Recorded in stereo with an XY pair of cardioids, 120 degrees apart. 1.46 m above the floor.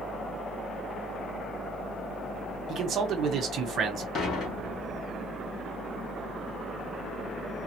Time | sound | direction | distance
0.0 | a fan | 40° left | 2 m
2.7 | a man speaking | 55° right | 1.3 m
4.2 | dishes clattering | 60° left | 2.5 m